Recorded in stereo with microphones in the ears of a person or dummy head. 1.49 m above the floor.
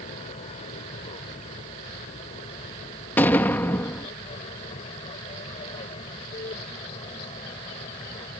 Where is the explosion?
10° left (ahead or behind).